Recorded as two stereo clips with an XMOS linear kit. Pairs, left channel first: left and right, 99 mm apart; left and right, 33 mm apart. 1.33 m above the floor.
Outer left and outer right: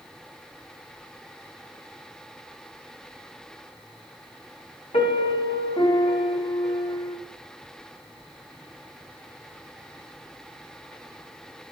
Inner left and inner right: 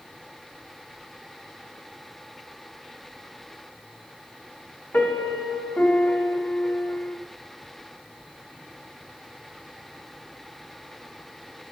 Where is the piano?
65° left (ahead or behind), 1.2 m.